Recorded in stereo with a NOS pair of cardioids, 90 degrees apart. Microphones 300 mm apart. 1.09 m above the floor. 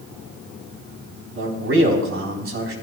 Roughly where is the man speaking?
Ahead right.